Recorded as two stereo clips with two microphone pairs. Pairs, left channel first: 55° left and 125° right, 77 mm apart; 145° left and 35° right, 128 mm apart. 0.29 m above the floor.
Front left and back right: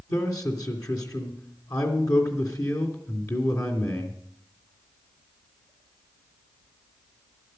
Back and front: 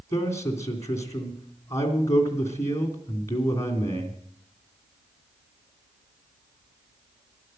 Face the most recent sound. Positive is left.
turn(degrees=85)